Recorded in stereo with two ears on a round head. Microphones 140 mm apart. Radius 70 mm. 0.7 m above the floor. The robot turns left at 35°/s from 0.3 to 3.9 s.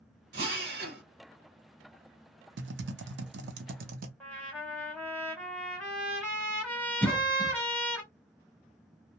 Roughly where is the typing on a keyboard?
Right.